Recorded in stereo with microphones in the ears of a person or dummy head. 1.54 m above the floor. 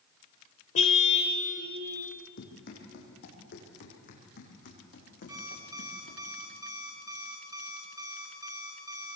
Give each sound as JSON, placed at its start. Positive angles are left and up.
{"t": 0.8, "sound": "a car horn", "side_deg": 35, "distance_m": 2.5}
{"t": 2.4, "sound": "running footsteps", "side_deg": 50, "distance_m": 4.5}
{"t": 5.3, "sound": "an alarm clock", "side_deg": -25, "distance_m": 3.0}